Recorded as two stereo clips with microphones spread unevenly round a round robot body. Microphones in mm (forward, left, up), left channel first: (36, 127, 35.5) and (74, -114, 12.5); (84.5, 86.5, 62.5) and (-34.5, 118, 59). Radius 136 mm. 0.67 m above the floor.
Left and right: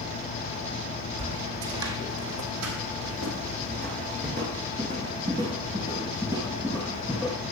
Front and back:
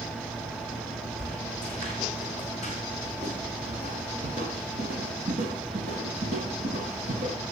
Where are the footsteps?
80° right, 1.5 m; by 7.4 s 170° right, 3 m.